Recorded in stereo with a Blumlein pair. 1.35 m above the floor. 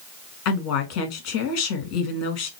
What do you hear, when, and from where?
0.5 s a woman speaking: 45° left, 2 m